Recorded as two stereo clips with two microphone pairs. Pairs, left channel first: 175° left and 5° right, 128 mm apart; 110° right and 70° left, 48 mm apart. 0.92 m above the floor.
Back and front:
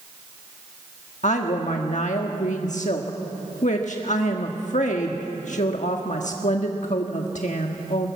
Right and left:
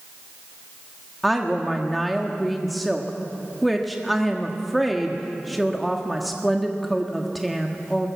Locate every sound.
1.2 s a woman speaking: 160° left, 1.3 m